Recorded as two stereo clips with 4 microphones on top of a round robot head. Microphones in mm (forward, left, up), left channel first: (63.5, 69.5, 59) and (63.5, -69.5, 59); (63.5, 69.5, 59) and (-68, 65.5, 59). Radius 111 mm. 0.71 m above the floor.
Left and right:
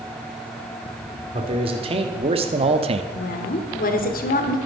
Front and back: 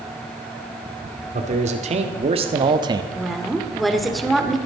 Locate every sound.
1.3 s a man speaking: 145° right, 2.0 m; by 3.0 s 120° right, 0.9 m
3.1 s a woman speaking: 90° left, 2 m